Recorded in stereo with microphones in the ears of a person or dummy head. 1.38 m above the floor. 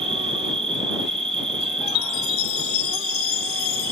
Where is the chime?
60° left (ahead or behind).